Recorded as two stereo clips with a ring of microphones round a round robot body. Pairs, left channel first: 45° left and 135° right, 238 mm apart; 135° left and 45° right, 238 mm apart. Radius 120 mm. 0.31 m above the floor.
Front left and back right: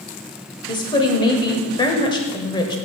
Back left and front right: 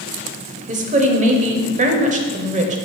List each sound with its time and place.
0.7 s a woman speaking: 15° right, 1.0 m